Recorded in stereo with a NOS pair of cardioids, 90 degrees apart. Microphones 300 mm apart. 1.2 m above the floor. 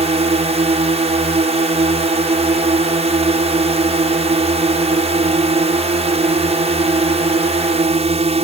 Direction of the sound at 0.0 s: 20° right.